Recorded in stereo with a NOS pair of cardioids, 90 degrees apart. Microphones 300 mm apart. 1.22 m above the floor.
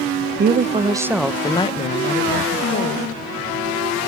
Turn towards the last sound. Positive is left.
turn(degrees=50)